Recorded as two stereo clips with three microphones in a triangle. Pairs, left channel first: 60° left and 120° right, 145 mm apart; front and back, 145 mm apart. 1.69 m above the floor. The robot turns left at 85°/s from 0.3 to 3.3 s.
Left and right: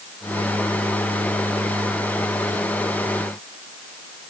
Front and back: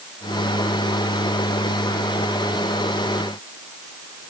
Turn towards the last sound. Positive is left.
No sound to turn to.